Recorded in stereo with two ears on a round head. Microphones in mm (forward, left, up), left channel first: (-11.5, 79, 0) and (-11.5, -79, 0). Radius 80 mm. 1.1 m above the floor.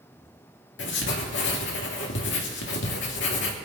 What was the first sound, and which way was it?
Writing, 75° left (ahead or behind).